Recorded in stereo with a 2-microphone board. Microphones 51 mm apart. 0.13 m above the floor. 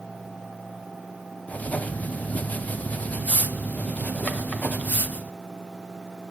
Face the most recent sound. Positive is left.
turn(degrees=30)  # may be behind; listen again after turning